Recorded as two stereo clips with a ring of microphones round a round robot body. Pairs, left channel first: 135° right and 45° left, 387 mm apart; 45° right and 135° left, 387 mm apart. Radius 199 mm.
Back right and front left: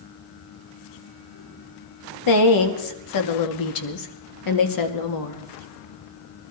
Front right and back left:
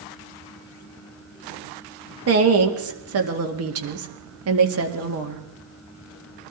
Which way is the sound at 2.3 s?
170° right.